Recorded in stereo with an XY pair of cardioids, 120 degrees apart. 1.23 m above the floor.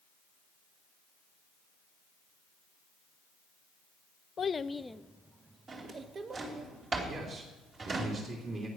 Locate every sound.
4.4 s a child speaking: 40° left, 0.6 m; by 6.7 s 45° right, 1.3 m
5.7 s a drawer: 35° right, 3 m
7.1 s a man speaking: 40° right, 3 m